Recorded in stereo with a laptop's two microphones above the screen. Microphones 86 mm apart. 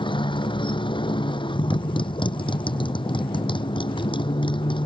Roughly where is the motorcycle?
Left.